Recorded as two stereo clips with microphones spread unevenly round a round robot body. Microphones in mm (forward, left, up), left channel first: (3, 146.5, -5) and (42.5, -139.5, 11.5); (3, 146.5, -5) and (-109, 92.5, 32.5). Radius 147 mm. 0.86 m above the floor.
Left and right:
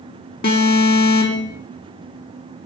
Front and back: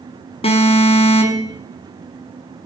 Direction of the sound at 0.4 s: 45° left.